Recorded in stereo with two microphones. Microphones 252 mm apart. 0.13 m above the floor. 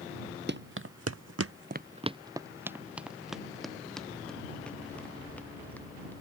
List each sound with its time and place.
0.5 s running footsteps: 45° right (ahead or behind); by 6.1 s 5° left (ahead or behind)